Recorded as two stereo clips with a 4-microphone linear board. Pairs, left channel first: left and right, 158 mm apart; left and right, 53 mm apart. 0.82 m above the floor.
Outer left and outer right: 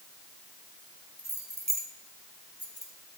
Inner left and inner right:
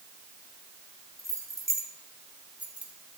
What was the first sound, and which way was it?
Keys jangling, 85° right.